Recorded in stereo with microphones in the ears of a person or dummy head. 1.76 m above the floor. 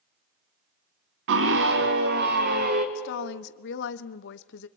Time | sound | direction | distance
1.3 | a scream | 65° right (ahead or behind) | 1.1 m
3.0 | a woman speaking | 65° left (ahead or behind) | 1.0 m